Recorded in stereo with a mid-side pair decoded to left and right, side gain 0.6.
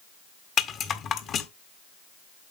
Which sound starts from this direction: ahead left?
A rattle, at 0.6 s.